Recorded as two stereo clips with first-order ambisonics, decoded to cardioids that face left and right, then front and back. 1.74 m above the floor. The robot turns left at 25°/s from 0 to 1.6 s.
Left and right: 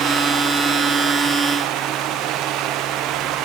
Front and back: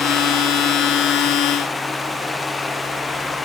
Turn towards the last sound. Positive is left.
No sound to turn to.